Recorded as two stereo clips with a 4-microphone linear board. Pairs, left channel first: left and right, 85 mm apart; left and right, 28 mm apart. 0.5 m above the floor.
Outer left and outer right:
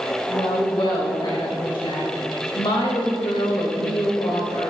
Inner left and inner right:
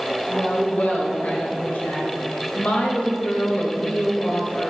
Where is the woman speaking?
65° left (ahead or behind), 2.5 m.